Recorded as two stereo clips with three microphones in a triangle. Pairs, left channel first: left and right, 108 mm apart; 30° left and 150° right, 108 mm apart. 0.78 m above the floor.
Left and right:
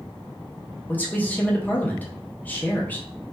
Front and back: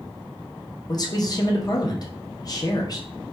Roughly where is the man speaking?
Ahead left.